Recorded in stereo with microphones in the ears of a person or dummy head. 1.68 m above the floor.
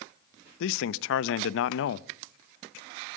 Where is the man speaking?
70° left (ahead or behind), 0.6 m.